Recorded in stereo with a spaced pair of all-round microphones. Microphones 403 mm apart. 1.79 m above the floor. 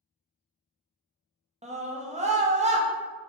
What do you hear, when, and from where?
1.6 s a scream: 15° right (ahead or behind), 0.5 m